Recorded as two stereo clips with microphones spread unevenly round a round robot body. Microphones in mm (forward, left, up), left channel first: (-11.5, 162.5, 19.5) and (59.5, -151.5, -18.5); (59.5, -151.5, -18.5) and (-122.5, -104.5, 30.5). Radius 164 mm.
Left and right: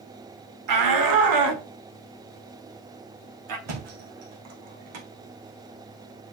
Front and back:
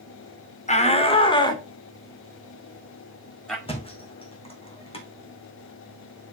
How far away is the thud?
About 3.5 m.